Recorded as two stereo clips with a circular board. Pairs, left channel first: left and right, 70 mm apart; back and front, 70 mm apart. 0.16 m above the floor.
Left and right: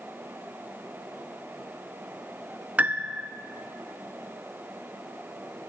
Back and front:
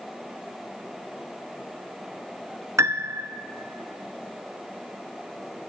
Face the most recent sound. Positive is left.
turn(degrees=-30)